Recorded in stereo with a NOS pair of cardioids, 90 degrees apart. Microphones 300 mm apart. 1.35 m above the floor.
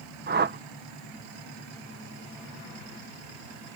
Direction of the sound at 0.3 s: 35° right.